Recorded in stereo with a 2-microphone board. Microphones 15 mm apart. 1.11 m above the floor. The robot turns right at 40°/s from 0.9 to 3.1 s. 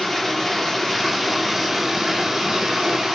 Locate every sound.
0.0 s running water: 170° left, 0.7 m; by 3.1 s 100° right, 0.7 m